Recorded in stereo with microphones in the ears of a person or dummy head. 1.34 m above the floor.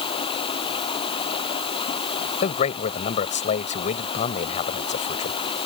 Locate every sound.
0.0 s running water: 30° left (ahead or behind)
2.4 s a man speaking: 40° left (ahead or behind)